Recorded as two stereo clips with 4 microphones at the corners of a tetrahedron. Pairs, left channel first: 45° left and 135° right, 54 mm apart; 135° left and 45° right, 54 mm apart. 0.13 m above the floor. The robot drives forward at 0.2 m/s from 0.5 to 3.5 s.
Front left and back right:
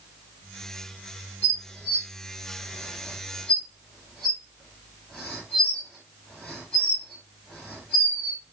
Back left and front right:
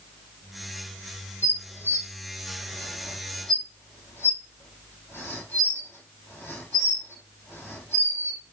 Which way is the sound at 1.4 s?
110° left.